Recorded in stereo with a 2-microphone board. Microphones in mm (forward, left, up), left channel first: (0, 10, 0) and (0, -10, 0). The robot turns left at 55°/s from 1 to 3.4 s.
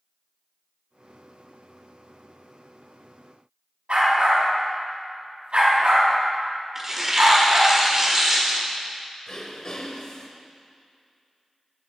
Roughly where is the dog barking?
Right.